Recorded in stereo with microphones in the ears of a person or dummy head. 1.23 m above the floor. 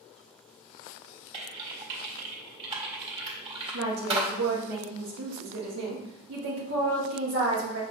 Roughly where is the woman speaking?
Right.